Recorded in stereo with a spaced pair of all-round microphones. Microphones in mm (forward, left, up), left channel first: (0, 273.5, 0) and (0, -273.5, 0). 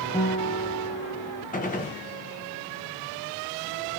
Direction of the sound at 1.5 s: 15° left (ahead or behind).